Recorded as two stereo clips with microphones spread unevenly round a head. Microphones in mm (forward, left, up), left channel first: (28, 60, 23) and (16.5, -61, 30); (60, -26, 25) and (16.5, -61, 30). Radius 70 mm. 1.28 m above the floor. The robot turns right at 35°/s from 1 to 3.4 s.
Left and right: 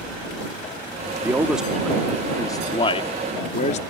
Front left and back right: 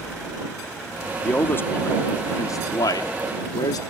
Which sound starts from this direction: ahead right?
A man speaking, at 1.2 s.